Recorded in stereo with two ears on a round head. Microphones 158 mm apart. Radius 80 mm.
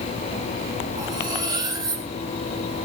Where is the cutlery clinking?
20° right (ahead or behind), 3 m.